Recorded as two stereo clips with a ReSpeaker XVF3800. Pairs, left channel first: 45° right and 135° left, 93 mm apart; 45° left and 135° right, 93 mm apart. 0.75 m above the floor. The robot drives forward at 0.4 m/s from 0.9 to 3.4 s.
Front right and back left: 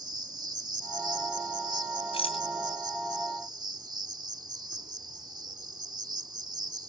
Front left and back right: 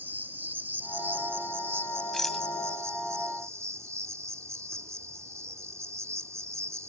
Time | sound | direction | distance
0.0 | an insect | 160° left | ?
2.1 | a rattle | 40° right | ?